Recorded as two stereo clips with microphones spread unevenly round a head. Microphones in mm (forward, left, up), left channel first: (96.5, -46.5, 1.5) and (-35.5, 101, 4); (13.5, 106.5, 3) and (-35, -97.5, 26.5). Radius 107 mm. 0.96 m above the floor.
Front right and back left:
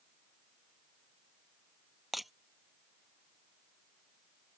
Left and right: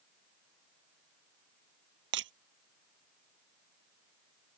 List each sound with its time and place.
2.1 s breaking glass: 140° right